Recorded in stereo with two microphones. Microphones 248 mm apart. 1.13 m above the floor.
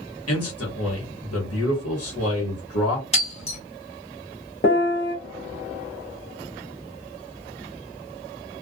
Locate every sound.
0.3 s a man speaking: 70° left (ahead or behind), 1.3 m
3.1 s breaking glass: 25° left (ahead or behind), 1.6 m
4.6 s a piano: 50° left (ahead or behind), 0.7 m